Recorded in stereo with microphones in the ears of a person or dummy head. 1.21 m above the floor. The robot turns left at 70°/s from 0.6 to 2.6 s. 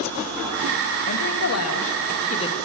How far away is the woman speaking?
About 2 m.